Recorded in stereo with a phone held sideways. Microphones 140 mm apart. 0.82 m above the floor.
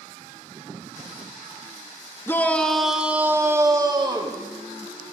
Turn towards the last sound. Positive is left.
turn(degrees=-35)  # may be behind; listen again after turning